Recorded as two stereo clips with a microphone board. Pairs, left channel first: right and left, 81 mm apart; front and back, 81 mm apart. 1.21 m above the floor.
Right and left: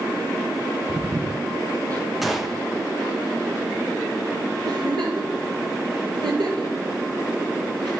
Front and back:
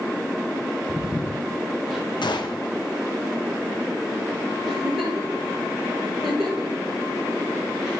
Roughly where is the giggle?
Left.